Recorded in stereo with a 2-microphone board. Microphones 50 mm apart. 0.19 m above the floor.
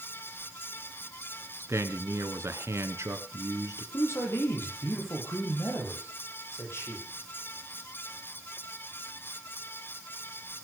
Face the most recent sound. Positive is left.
turn(degrees=50)  # may be behind; listen again after turning